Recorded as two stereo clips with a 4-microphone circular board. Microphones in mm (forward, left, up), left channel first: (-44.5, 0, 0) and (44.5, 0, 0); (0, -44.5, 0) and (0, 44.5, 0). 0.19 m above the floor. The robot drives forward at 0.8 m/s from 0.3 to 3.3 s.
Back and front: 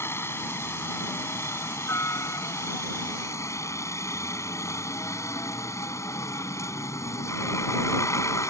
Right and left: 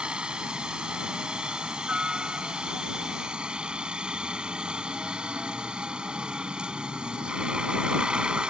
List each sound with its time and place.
0.0 s a helicopter: 160° left